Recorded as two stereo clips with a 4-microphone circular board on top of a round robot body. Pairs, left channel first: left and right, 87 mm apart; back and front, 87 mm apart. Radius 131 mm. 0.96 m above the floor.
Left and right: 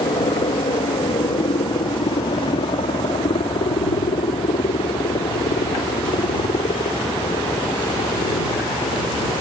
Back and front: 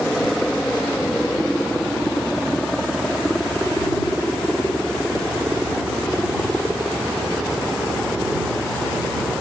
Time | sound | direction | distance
0.0 | a helicopter | 95° left | ?